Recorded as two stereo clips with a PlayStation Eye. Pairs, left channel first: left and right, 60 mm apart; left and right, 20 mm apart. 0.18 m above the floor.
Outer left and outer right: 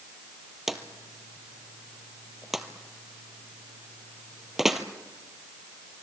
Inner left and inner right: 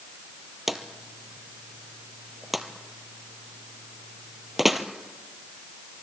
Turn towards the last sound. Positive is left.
turn(degrees=-5)  # may be behind; listen again after turning